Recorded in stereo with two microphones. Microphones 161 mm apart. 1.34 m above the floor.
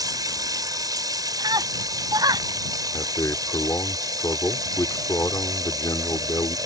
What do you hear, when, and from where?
0.0 s running water: 25° right (ahead or behind)
1.4 s a scream: 25° right (ahead or behind)
2.9 s a man speaking: 20° left (ahead or behind)